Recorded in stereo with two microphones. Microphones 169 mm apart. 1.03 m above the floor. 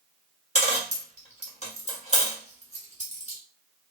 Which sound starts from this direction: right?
A dropped coin, at 0.6 s.